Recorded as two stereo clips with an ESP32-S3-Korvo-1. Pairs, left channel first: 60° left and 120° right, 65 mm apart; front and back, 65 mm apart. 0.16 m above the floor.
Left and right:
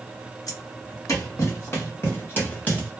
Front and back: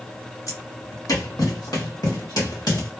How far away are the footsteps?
About 1.6 m.